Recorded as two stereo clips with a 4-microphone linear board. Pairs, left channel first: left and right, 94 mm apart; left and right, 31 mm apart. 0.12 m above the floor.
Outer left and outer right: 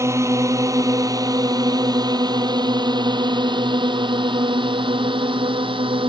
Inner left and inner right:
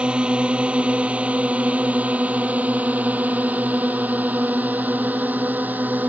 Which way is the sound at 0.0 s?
30° right (ahead or behind).